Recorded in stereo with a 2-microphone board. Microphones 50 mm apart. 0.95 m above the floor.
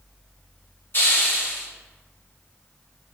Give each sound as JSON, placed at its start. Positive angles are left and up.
{"t": 0.9, "sound": "a hiss", "side_deg": 55, "distance_m": 0.9}